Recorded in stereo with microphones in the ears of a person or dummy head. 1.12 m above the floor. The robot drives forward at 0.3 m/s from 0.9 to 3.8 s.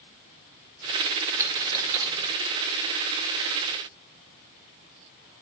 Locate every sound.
1.4 s a dropped coin: 20° right (ahead or behind), 0.6 m